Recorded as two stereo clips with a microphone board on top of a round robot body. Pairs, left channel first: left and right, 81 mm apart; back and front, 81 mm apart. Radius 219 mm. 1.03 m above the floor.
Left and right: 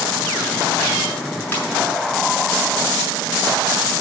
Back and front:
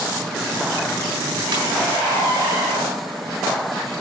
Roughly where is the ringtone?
Ahead.